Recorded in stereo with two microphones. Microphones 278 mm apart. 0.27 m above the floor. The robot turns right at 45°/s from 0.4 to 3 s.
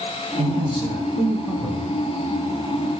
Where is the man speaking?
25° right (ahead or behind), 1.4 m; by 2.0 s centre (ahead or behind), 1.4 m.